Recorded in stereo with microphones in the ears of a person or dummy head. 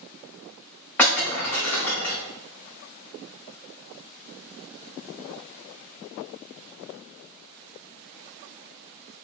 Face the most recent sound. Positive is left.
turn(degrees=10)  # may be behind; listen again after turning